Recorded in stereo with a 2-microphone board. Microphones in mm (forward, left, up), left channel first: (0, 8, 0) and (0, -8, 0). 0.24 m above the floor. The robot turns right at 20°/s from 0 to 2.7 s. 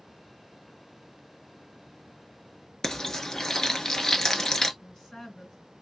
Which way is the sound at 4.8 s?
55° left (ahead or behind).